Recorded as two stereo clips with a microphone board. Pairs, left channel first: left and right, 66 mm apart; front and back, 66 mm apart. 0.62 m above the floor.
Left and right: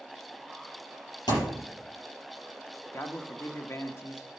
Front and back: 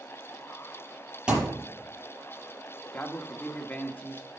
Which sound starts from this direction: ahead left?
A man speaking, at 2.9 s.